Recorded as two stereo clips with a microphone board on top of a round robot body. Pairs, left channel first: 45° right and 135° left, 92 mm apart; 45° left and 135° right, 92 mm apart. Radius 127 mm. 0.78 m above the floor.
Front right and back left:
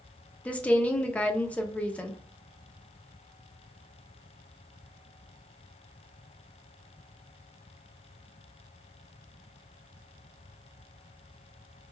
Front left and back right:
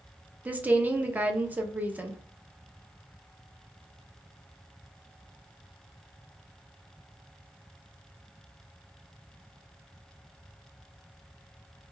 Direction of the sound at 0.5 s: 95° right.